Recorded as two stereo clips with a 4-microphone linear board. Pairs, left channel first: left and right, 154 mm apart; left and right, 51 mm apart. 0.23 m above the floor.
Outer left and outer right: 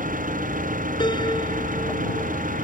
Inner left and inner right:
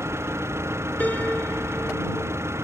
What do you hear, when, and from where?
0.0 s an engine running: 60° right (ahead or behind)
1.0 s a piano: 30° left (ahead or behind)